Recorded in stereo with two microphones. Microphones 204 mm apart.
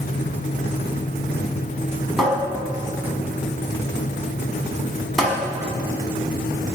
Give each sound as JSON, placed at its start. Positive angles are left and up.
{"t": 2.2, "sound": "a cupboard door", "side_deg": 0, "distance_m": 1.4}